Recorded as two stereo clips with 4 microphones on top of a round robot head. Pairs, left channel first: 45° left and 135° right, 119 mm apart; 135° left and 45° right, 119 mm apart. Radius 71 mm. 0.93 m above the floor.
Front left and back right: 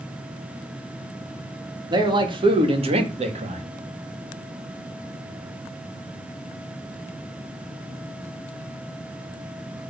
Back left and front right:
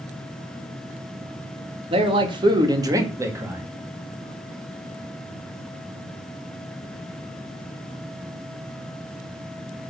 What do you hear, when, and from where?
1.9 s a man speaking: 85° right, 1.9 m; by 3.6 s 120° right, 2.0 m